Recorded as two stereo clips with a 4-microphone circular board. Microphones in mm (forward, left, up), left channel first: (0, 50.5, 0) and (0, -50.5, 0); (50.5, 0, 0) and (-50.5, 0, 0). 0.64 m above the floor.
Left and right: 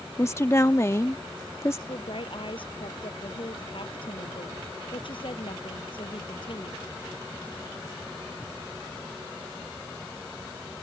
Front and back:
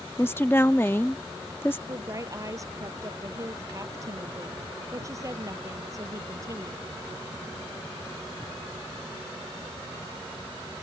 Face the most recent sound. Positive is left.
turn(degrees=120)